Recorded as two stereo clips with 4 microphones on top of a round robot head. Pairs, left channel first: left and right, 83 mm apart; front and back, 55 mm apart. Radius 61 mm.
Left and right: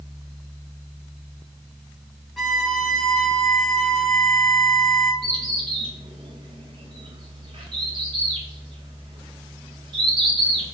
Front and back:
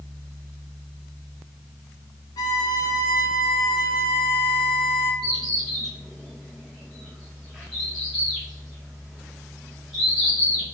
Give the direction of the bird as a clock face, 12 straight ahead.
3 o'clock.